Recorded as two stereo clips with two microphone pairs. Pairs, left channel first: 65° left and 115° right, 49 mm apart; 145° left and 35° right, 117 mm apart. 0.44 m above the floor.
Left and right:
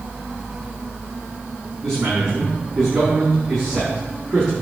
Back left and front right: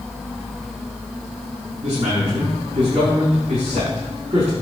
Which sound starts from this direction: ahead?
A man speaking, at 1.8 s.